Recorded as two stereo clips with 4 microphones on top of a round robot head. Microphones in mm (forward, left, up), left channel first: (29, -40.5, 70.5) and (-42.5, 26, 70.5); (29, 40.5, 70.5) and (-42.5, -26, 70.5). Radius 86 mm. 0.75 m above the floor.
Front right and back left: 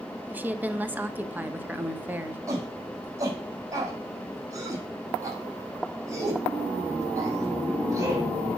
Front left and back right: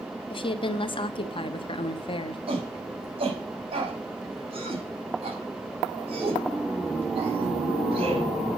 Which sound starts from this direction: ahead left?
A woman speaking, at 0.3 s.